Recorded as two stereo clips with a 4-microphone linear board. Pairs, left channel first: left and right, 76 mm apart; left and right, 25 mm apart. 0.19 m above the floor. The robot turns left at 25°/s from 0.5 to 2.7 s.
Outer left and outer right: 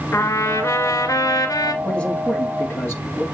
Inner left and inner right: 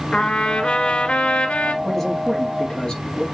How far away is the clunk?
I don't hear a clunk.